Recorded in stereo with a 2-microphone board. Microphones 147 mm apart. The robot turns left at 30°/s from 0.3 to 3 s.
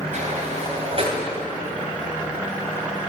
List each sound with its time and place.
0.1 s a sliding door: 60° right (ahead or behind), 3 m; by 1.2 s 40° right (ahead or behind), 3 m